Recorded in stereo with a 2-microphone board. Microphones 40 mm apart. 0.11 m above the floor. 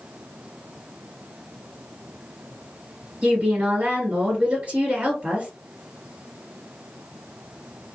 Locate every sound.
3.2 s a woman speaking: 35° right (ahead or behind), 1.9 m